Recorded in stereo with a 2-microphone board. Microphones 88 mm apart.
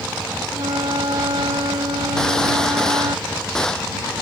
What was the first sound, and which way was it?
A flute, 75° right (ahead or behind).